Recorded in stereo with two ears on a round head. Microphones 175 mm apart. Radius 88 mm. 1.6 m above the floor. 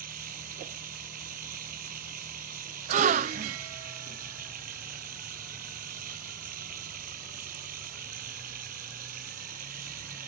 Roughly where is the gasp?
Right.